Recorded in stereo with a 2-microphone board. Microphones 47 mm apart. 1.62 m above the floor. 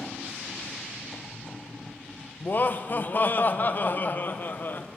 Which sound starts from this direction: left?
Laughter, at 2.4 s.